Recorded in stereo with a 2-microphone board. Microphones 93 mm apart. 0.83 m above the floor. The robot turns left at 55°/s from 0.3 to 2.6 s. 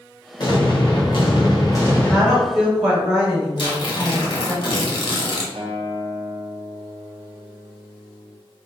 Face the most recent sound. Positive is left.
turn(degrees=-80)